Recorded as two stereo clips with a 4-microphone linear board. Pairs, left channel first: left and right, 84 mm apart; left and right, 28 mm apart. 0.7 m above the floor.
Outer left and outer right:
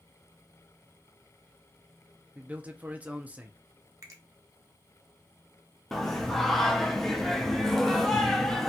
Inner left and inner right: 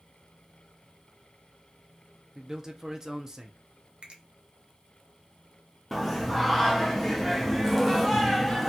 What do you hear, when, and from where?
2.4 s a man speaking: 20° right (ahead or behind), 0.5 m
4.0 s a finger snap: 40° right (ahead or behind), 0.9 m
5.9 s singing: 5° left (ahead or behind), 0.5 m